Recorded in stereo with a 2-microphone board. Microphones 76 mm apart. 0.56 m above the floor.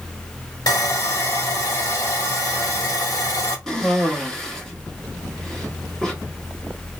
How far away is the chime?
I don't hear a chime.